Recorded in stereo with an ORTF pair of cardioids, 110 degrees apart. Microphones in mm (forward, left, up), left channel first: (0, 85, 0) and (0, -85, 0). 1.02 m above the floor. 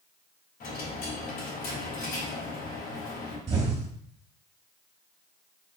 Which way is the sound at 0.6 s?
65° left.